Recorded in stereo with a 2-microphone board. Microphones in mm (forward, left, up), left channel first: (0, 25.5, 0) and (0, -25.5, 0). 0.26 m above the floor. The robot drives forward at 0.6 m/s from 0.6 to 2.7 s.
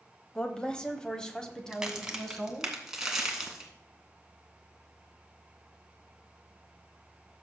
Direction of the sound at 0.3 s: 20° left (ahead or behind).